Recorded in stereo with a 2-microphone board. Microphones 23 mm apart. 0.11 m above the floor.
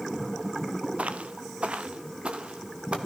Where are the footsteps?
85° right, 1.0 m; by 3.0 s 55° right (ahead or behind), 2.5 m.